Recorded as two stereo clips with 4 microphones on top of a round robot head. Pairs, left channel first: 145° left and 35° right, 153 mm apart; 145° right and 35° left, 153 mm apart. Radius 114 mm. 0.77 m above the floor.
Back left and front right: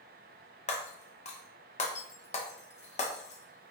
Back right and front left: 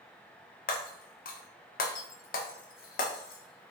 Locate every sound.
0.7 s breaking glass: 170° right, 0.5 m